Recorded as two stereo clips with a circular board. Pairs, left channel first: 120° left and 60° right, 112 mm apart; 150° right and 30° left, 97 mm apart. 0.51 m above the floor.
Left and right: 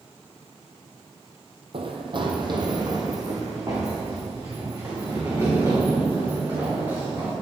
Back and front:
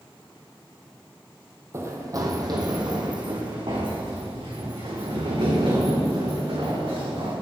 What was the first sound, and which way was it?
Running footsteps, 30° right.